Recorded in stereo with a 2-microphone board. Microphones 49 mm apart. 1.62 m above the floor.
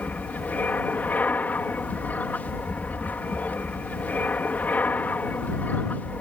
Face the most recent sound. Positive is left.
turn(degrees=35)  # may be behind; listen again after turning